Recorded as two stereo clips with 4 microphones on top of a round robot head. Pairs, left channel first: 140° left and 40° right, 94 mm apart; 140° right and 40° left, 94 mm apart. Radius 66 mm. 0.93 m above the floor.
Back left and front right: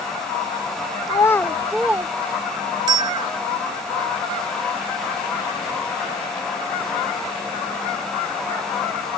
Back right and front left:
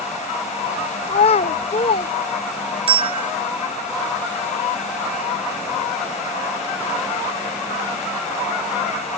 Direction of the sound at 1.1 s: 170° right.